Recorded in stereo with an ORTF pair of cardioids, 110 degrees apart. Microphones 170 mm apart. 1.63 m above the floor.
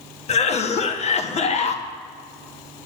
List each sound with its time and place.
0.3 s a cough: 40° left, 1.4 m